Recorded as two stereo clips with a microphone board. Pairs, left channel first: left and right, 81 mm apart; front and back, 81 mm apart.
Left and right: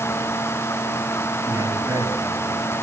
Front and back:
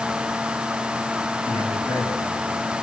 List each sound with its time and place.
1.4 s a man speaking: 40° right, 6.5 m; by 2.6 s 35° right, 6 m